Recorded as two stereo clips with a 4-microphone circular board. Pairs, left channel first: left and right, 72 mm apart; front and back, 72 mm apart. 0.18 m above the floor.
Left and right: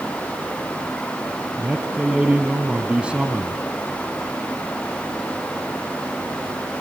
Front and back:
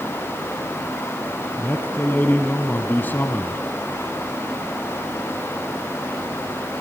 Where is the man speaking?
30° right, 1.3 m.